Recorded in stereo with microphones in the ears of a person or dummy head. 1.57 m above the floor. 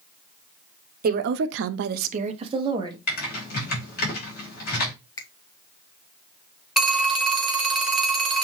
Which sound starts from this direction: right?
A woman speaking, at 1.0 s.